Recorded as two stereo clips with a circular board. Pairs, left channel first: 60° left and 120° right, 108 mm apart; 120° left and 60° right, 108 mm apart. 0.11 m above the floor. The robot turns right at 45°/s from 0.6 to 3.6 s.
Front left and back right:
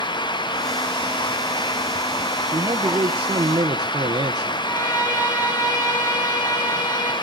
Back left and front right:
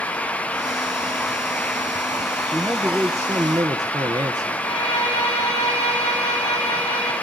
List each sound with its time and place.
2.5 s a man speaking: 145° right, 1.5 m; by 4.7 s 95° right, 1.5 m
4.6 s a violin: 120° left, 8.5 m